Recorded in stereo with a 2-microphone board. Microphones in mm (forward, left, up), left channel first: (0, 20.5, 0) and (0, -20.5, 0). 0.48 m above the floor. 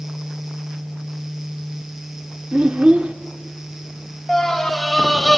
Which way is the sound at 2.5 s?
35° right (ahead or behind).